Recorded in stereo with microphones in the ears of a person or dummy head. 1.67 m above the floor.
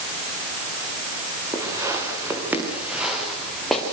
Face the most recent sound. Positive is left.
turn(degrees=0)  # may be behind; listen again after turning